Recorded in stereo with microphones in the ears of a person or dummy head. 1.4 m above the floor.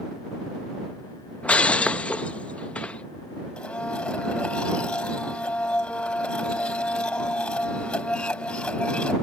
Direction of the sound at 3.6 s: 5° left (ahead or behind).